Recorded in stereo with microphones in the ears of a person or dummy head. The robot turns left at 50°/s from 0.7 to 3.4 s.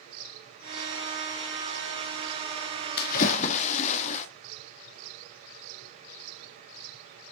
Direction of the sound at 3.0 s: 60° left (ahead or behind).